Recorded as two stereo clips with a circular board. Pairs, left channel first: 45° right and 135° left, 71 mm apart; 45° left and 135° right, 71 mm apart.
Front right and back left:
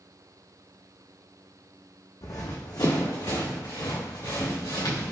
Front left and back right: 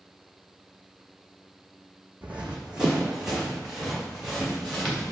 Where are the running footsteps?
70° right, 0.7 m; by 5.1 s 50° right, 2.5 m.